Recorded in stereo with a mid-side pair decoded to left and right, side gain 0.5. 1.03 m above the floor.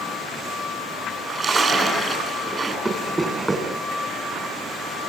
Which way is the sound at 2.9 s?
20° right.